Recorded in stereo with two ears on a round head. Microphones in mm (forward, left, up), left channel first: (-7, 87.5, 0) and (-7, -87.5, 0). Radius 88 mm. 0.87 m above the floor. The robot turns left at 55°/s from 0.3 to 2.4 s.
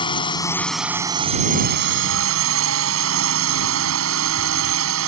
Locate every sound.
0.0 s a drone: 25° left; by 5.1 s 90° right